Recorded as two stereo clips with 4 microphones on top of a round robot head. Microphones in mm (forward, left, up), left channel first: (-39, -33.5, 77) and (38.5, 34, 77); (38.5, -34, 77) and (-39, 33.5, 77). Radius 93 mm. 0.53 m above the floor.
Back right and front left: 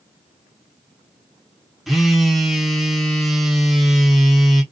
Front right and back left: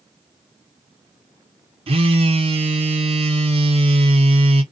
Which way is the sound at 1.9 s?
130° left.